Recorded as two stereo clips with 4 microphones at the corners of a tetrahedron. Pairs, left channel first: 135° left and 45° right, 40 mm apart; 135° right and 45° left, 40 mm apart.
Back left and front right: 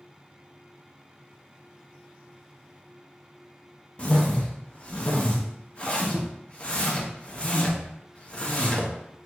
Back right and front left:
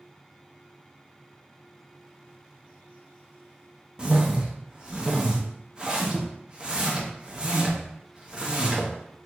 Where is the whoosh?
95° left, 0.6 m.